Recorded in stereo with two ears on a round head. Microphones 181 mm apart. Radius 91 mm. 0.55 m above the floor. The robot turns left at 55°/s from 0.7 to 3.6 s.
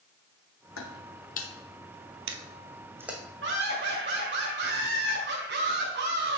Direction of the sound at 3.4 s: 65° right (ahead or behind).